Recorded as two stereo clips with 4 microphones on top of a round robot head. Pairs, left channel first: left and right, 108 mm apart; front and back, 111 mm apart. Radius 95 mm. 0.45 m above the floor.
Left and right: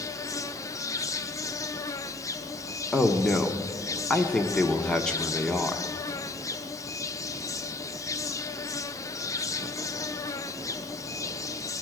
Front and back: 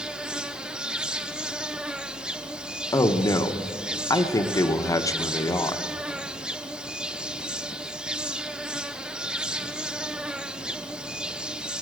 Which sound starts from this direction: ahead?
A man speaking, at 2.9 s.